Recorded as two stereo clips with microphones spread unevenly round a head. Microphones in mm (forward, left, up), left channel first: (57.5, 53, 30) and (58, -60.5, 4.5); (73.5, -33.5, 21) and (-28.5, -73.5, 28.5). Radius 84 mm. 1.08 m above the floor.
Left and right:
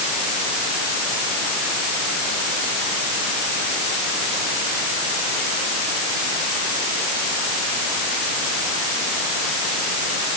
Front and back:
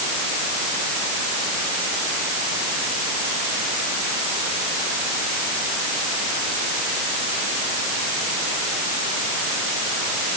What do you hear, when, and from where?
Only background noise.